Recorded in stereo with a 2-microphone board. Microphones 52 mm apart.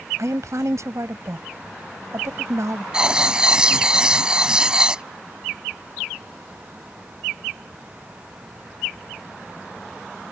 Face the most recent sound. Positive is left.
turn(degrees=-15)  # may be behind; listen again after turning